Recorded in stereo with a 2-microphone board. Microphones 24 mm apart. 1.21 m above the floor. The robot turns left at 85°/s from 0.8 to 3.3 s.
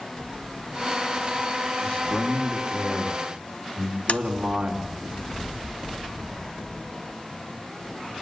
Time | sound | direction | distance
1.8 | a man speaking | 80° left | 4.5 m
4.1 | tapping | 65° left (ahead or behind) | 0.9 m